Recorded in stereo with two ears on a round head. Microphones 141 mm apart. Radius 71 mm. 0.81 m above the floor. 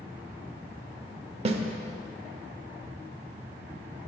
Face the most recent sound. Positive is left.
turn(degrees=-40)  # may be behind; listen again after turning